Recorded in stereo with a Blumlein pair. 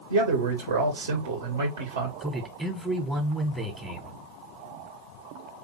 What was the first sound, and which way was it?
A man speaking, 60° right.